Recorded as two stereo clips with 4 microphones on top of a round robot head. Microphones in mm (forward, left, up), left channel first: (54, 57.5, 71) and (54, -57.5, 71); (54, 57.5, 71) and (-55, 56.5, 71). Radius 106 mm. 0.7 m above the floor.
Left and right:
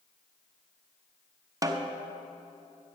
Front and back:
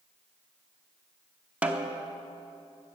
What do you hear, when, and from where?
1.6 s a snare drum: 110° right, 1.0 m